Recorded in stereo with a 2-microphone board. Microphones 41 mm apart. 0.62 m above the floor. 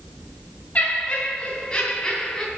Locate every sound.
0.8 s laughter: 35° left (ahead or behind), 3.5 m; by 2.5 s 15° left (ahead or behind), 4 m